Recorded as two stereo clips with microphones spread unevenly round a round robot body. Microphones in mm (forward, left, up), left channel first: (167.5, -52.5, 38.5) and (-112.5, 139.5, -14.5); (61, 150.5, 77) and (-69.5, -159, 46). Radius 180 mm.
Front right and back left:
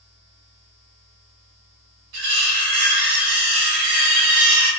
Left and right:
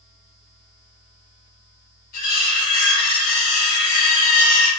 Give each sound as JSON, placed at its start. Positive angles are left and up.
{"t": 2.1, "sound": "cutlery clinking", "azimuth_deg": 135, "distance_m": 1.2}